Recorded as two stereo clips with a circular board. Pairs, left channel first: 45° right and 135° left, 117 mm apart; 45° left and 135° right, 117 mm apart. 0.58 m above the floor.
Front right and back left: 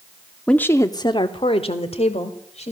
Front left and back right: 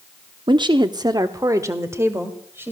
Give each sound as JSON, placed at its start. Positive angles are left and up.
{"t": 0.5, "sound": "a woman speaking", "azimuth_deg": -125, "distance_m": 0.7}